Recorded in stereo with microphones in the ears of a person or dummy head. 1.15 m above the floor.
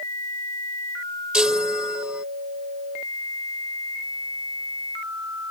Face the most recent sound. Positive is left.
turn(degrees=-5)  # may be behind; listen again after turning